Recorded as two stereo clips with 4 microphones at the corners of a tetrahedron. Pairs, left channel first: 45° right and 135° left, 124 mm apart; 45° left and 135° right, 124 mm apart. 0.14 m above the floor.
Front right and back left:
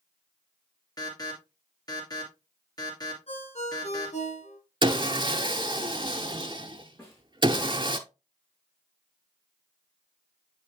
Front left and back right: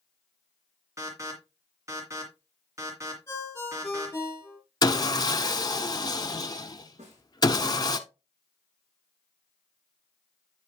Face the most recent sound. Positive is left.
turn(degrees=-115)